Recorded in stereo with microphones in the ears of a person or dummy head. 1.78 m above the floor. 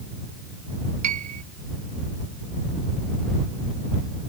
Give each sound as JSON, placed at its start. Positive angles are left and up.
{"t": 1.0, "sound": "a piano", "side_deg": -40}